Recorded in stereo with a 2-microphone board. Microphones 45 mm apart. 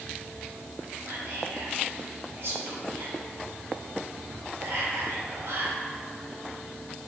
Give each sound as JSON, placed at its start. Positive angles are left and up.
{"t": 1.1, "sound": "whispering", "side_deg": -70, "distance_m": 2.0}